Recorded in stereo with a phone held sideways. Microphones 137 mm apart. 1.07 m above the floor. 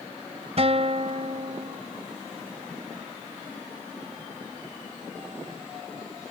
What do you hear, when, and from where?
0.6 s a guitar: 50° right (ahead or behind)